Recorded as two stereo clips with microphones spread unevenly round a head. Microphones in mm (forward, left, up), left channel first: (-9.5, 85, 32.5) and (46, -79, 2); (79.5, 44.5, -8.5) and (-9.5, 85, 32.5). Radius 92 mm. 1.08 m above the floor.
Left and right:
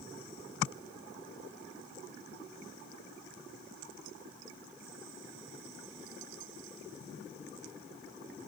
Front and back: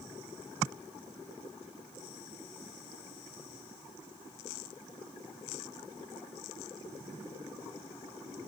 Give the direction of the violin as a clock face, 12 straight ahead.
No violin in this recording.